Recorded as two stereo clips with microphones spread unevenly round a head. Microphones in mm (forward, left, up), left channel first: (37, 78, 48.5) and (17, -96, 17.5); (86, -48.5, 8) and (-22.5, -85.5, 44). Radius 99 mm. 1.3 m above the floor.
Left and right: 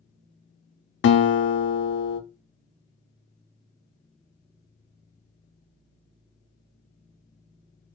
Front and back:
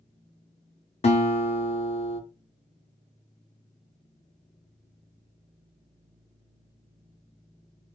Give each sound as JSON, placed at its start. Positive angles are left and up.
{"t": 1.0, "sound": "a guitar", "azimuth_deg": 60, "distance_m": 0.5}